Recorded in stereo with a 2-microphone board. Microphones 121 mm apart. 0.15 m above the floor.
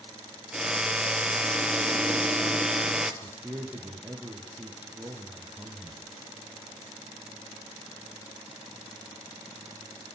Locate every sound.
0.5 s a drill: 5° right (ahead or behind), 1.7 m
3.2 s a man speaking: 15° right (ahead or behind), 5 m